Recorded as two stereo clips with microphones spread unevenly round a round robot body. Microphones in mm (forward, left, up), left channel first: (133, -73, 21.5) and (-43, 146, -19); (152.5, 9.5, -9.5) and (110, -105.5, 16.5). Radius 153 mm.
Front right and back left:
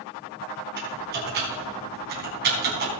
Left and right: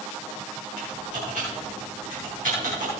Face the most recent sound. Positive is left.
turn(degrees=-170)